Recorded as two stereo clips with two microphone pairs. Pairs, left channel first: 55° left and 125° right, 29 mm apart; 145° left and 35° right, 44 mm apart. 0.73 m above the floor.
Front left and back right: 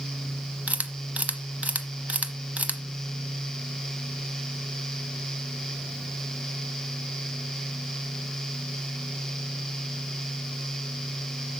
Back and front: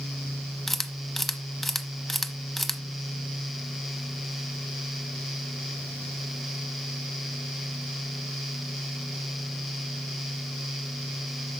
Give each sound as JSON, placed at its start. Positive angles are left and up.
{"t": 0.7, "sound": "a camera shutter", "azimuth_deg": -130, "distance_m": 0.8}